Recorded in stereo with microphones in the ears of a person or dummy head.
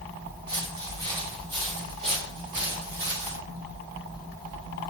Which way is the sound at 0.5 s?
20° right (ahead or behind).